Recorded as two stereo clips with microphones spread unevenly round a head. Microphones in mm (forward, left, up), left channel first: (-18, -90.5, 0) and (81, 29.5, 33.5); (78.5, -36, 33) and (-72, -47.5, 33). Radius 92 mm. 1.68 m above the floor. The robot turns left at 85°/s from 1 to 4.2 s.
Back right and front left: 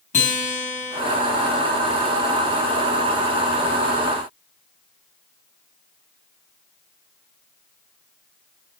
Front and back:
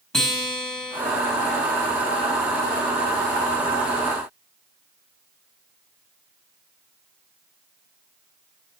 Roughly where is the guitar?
Right.